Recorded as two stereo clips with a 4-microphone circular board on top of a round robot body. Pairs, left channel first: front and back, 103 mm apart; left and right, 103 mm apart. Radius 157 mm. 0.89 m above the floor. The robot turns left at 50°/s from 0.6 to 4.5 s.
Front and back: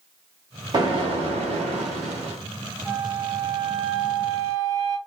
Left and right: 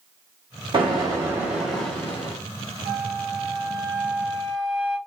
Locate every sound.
0.7 s an explosion: 130° right, 1.0 m; by 2.4 s 145° left, 1.0 m
2.9 s a flute: 90° right, 0.5 m; by 5.0 s 175° right, 0.5 m